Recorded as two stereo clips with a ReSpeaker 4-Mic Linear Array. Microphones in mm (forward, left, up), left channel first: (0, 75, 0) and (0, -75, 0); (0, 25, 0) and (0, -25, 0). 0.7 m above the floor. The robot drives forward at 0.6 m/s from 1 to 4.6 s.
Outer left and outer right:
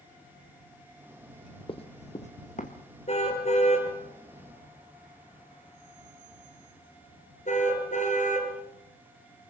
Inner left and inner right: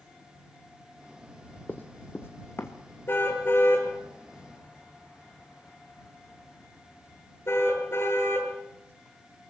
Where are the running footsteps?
35° left (ahead or behind), 1.6 m; by 2.8 s 55° left (ahead or behind), 3 m.